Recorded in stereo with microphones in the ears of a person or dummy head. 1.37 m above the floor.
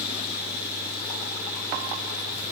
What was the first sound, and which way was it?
Only background noise.